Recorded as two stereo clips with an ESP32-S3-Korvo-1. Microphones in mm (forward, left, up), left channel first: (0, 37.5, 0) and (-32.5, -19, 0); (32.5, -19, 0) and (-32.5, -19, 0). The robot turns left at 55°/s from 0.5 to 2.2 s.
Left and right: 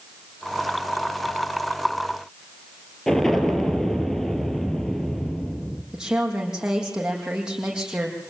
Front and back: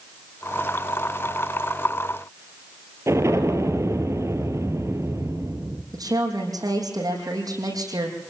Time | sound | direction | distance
3.1 | an explosion | 145° left | 2.5 m
5.9 | a woman speaking | 160° left | 6.5 m